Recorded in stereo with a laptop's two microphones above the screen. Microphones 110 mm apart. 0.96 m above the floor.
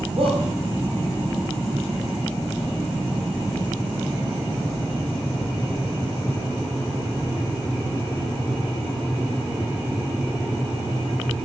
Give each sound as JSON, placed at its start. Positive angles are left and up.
{"t": 0.2, "sound": "a shout", "side_deg": -65, "distance_m": 5.5}